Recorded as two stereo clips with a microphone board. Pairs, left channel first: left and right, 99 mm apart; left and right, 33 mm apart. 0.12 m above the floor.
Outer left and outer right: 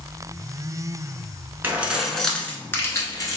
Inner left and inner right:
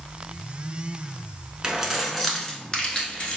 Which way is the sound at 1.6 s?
20° right (ahead or behind).